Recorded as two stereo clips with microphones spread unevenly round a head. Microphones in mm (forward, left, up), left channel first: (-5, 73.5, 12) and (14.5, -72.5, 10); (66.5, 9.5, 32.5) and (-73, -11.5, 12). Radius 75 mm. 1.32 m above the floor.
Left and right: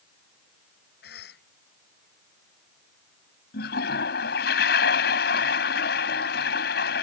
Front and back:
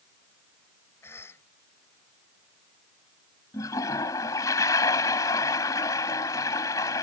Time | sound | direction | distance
1.0 | a cough | 80° left | ?
3.5 | a toilet flushing | 75° left | ?